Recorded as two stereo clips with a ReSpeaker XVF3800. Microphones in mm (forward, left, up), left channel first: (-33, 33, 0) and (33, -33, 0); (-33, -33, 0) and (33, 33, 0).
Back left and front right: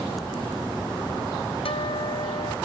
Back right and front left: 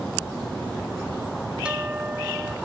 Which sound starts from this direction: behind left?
A guitar, at 1.6 s.